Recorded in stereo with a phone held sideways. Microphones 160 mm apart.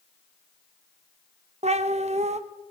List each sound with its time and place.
1.6 s a cat meowing: 45° right (ahead or behind), 0.7 m